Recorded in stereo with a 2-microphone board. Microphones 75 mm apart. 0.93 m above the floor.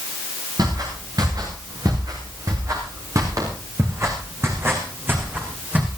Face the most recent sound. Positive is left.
turn(degrees=-20)  # may be behind; listen again after turning